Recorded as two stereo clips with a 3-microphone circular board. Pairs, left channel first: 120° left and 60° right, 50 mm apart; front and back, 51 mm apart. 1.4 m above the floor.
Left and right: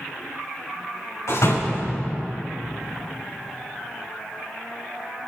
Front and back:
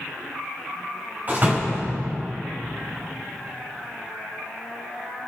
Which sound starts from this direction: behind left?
A door slam, at 1.3 s.